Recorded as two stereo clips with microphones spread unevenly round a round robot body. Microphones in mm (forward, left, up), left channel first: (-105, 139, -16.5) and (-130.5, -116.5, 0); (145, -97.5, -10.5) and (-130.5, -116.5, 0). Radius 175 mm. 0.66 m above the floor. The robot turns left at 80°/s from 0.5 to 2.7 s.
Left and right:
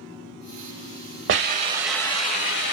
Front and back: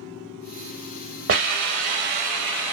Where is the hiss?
135° right, 0.9 m; by 2.7 s 110° left, 0.9 m.